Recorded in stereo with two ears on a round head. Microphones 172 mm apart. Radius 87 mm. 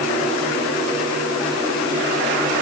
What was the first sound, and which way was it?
Only background noise.